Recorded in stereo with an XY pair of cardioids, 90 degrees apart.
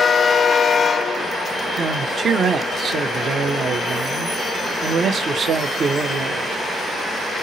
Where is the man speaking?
55° right, 0.9 m.